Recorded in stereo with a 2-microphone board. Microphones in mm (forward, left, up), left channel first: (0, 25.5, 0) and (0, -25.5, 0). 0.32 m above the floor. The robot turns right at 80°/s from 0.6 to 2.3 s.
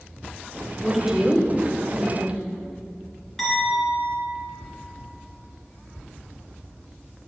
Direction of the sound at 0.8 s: Centre (ahead or behind).